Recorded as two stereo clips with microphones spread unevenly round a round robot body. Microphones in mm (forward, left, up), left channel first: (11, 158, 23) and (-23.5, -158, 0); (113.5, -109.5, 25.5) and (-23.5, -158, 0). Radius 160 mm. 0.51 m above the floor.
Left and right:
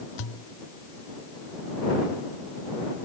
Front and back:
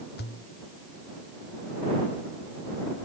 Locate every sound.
0.2 s a pop: 60° left